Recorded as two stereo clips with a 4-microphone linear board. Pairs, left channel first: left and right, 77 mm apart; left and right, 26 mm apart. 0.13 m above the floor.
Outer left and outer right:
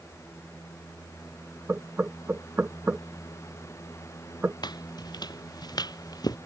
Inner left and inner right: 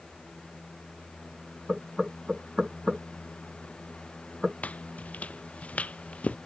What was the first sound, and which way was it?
Knocking, 25° right (ahead or behind).